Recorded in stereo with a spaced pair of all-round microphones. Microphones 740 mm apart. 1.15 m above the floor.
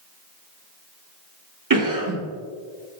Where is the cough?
25° right (ahead or behind), 0.7 m.